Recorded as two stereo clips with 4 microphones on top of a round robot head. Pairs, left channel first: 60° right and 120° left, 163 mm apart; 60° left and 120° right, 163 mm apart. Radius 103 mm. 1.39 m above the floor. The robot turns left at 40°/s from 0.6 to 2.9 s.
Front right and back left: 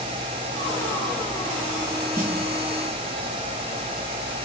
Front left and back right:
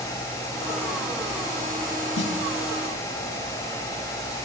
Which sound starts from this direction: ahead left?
A snare drum, at 2.2 s.